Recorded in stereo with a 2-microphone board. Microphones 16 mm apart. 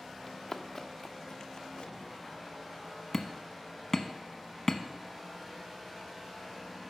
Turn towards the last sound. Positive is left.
turn(degrees=20)  # may be behind; listen again after turning